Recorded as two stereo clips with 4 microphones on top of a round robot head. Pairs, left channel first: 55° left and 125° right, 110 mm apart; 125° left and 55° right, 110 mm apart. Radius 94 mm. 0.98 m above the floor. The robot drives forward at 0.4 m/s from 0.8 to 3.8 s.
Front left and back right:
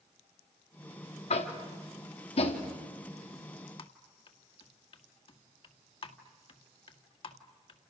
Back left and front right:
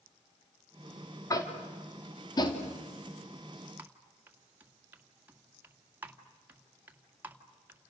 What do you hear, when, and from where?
1.3 s tapping: 70° left, 3 m; by 2.6 s 80° left, 3 m
3.8 s typing on a keyboard: 20° left, 2.0 m